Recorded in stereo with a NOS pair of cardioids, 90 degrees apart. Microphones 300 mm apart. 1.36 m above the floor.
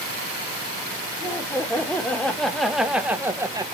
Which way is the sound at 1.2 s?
10° left.